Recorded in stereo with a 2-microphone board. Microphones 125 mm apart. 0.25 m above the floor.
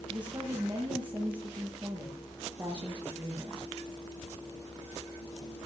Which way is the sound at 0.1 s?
40° right (ahead or behind).